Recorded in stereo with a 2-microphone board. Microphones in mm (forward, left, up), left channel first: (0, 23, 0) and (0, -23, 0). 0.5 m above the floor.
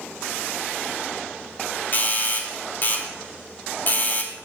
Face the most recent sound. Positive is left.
turn(degrees=45)  # may be behind; listen again after turning